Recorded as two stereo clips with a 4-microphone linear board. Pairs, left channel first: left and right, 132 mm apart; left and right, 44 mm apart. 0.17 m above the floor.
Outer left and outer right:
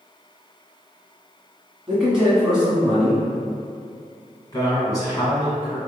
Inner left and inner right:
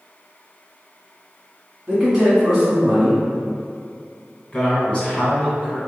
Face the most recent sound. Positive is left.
turn(degrees=25)  # may be behind; listen again after turning